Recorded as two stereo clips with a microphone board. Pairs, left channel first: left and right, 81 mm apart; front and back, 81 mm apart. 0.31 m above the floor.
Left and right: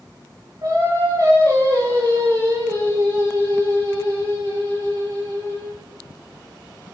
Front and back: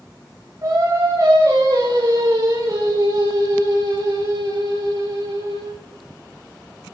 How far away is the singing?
About 8 m.